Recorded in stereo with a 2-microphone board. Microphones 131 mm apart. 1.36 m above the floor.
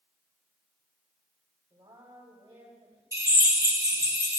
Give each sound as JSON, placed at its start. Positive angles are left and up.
{"t": 1.7, "sound": "a woman speaking", "side_deg": -30, "distance_m": 3.5}
{"t": 3.1, "sound": "a drill", "side_deg": -25, "distance_m": 2.5}